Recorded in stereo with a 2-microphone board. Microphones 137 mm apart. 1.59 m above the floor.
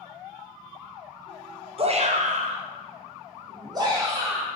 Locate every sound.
1.8 s a shout: 45° right (ahead or behind), 0.6 m; by 4.5 s 25° right (ahead or behind), 1.5 m